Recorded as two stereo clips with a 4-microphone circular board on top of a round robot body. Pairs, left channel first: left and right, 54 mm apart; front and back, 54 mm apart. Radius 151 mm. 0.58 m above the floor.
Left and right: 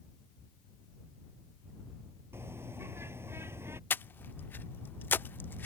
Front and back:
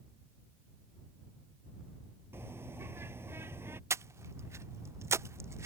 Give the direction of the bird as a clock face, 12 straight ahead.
4 o'clock.